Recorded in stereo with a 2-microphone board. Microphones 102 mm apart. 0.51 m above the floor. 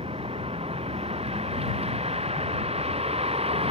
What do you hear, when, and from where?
0.0 s a vehicle: 75° right (ahead or behind)